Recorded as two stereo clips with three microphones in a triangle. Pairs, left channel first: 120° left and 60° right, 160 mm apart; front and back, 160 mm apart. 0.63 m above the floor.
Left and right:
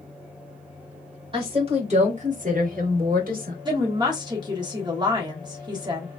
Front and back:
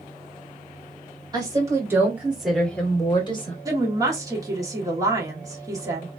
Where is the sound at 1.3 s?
115° right, 2 m; by 3.5 s 45° right, 1.3 m.